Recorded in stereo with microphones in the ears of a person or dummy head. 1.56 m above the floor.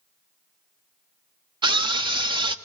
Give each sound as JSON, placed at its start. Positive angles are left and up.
{"t": 1.6, "sound": "a scream", "side_deg": -20, "distance_m": 0.6}